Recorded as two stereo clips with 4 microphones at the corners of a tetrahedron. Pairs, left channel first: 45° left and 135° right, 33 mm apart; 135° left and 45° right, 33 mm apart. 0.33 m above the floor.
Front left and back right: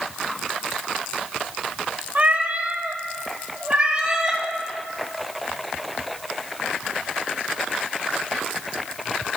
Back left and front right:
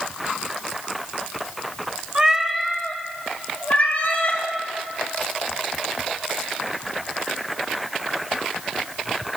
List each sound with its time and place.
2.1 s a cat meowing: 105° right, 0.6 m; by 4.4 s 155° left, 1.2 m